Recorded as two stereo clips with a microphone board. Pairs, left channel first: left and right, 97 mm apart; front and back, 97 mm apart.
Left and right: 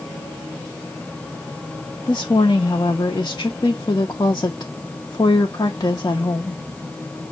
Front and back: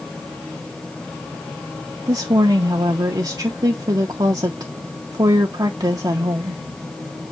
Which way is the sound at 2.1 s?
135° left.